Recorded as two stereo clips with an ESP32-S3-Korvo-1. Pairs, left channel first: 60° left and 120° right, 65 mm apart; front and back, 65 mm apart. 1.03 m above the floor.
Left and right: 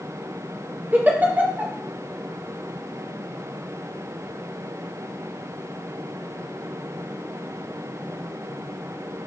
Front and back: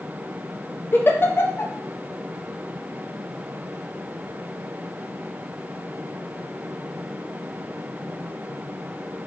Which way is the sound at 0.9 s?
55° right.